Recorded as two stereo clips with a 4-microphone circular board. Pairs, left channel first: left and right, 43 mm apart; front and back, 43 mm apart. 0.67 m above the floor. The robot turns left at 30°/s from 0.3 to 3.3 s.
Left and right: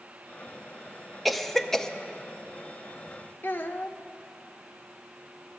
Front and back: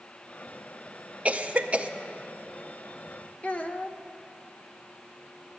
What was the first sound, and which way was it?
A cough, straight behind.